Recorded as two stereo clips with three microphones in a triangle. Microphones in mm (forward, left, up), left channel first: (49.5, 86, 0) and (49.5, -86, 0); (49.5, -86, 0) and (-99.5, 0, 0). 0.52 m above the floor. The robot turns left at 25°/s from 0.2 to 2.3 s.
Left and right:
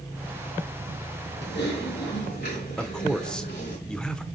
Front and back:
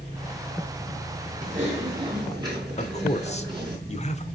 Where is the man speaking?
5° left, 1.2 m.